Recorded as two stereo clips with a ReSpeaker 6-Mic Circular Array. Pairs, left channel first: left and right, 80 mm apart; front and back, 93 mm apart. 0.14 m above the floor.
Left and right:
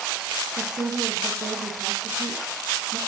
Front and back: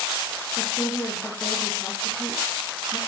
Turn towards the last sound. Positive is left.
turn(degrees=-75)